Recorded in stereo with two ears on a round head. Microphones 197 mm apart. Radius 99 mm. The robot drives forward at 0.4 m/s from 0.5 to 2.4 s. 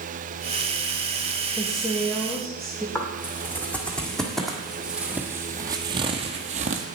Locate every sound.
1.6 s a woman speaking: centre (ahead or behind), 1.5 m
3.0 s footsteps: 10° left (ahead or behind), 2.5 m; by 6.9 s 35° right (ahead or behind), 1.3 m